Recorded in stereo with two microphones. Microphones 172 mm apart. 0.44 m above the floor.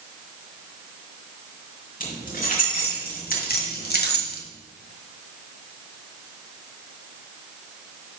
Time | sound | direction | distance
2.0 | keys jangling | 50° left (ahead or behind) | 4 m